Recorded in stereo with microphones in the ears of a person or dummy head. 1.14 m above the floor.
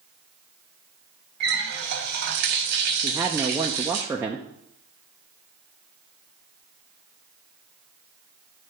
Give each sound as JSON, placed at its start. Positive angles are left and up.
{"t": 1.4, "sound": "a running tap", "side_deg": -60, "distance_m": 1.1}
{"t": 3.0, "sound": "a woman speaking", "side_deg": -5, "distance_m": 0.6}